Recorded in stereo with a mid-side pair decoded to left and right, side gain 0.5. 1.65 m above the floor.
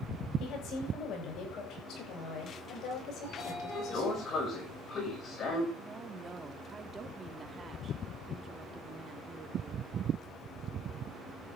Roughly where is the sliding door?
Ahead left.